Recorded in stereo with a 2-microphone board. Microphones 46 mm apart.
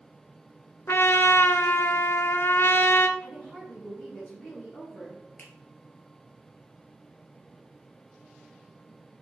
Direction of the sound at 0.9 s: 60° left (ahead or behind).